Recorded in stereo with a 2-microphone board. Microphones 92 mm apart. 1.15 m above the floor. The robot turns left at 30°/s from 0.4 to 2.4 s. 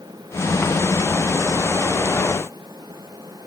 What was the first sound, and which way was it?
Only background noise.